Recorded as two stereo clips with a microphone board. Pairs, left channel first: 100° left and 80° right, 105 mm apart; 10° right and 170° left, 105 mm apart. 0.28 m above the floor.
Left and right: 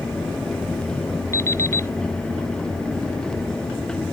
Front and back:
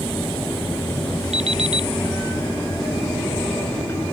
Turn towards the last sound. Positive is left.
turn(degrees=165)